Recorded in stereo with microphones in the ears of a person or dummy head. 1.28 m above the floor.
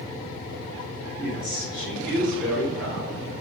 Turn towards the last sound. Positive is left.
turn(degrees=-5)  # may be behind; listen again after turning